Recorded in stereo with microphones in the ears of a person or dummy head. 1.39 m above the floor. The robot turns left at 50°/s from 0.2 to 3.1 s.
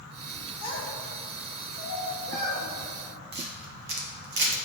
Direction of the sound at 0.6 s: 30° left (ahead or behind).